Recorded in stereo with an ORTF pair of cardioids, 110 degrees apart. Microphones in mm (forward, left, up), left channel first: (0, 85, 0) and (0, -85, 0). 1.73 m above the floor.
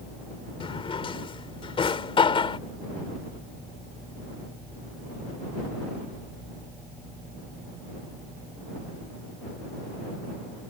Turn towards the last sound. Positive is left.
turn(degrees=30)